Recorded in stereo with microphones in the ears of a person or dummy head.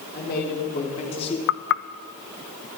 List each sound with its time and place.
0.1 s a man speaking: 45° left (ahead or behind), 3.5 m; by 1.4 s 25° left (ahead or behind), 2.5 m
1.5 s knocking: 70° left (ahead or behind), 0.8 m